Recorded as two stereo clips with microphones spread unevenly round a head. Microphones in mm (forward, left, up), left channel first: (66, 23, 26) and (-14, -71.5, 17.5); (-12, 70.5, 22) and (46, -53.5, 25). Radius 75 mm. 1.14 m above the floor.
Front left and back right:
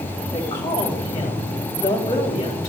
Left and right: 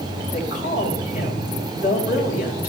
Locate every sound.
0.3 s a woman speaking: 110° left, 4 m